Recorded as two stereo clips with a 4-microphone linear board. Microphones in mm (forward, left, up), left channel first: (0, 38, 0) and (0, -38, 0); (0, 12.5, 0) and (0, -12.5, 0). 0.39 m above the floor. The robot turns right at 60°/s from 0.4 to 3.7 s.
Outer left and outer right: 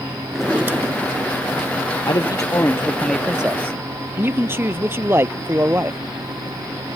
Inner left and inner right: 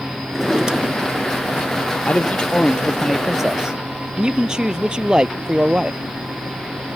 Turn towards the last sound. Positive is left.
turn(degrees=-150)